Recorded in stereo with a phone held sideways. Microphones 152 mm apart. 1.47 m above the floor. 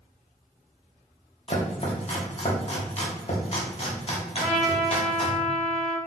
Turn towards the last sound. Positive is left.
turn(degrees=0)  # may be behind; listen again after turning